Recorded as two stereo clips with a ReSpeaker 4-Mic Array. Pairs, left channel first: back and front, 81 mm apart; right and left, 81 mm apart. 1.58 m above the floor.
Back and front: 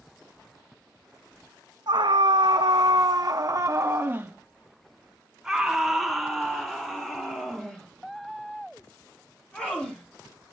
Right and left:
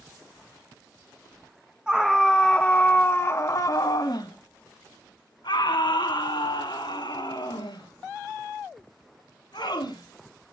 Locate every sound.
1.9 s a scream: 10° left, 1.0 m; by 10.5 s 105° right, 4.5 m